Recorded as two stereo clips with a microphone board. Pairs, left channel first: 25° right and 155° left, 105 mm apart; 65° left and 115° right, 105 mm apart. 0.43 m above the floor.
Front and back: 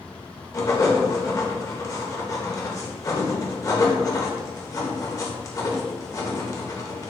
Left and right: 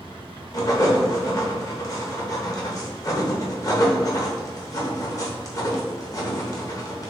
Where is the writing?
25° left, 0.8 m.